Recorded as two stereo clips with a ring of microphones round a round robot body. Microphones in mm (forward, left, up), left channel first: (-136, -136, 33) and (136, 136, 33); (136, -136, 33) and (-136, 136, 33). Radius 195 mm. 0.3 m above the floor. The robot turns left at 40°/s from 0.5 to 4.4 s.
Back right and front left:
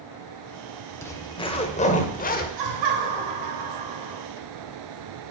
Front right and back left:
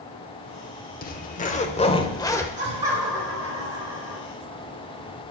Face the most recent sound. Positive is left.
turn(degrees=-10)